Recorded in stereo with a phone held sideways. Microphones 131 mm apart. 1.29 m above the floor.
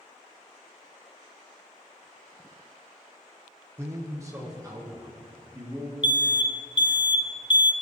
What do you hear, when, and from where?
3.8 s a man speaking: 20° right (ahead or behind), 1.1 m; by 5.9 s 25° right (ahead or behind), 3 m
6.0 s an alarm: 35° left (ahead or behind), 0.5 m